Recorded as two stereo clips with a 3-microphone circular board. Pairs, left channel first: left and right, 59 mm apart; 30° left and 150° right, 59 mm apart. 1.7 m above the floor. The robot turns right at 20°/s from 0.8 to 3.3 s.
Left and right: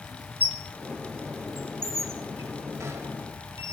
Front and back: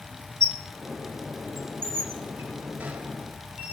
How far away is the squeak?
About 1.1 m.